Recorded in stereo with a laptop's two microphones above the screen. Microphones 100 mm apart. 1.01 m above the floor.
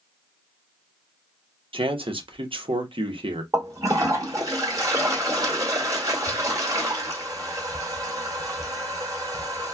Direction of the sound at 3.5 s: 35° right (ahead or behind).